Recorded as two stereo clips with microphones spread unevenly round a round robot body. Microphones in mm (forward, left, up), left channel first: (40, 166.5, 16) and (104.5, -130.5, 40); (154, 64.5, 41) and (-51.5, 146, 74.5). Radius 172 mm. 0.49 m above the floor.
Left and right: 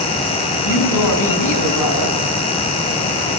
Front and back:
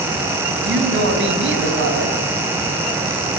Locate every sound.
0.6 s a woman speaking: 135° left, 5.5 m